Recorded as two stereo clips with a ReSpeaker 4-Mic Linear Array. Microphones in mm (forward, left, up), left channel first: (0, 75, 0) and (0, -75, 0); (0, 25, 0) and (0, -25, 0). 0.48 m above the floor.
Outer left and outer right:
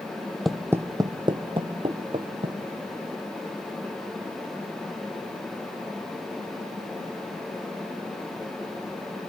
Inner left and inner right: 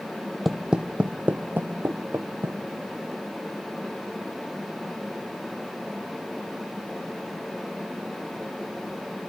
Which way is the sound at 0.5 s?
Centre (ahead or behind).